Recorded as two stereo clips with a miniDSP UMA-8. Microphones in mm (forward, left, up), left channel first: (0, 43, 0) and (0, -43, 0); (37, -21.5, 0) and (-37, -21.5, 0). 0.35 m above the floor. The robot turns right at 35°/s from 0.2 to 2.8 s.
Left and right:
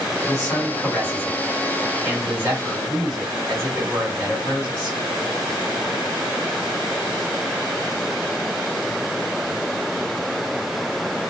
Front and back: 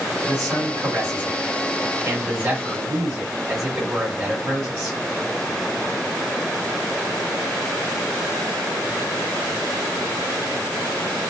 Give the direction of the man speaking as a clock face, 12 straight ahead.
7 o'clock.